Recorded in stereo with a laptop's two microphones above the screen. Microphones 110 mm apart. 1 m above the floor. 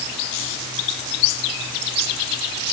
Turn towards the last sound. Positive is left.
No sound to turn to.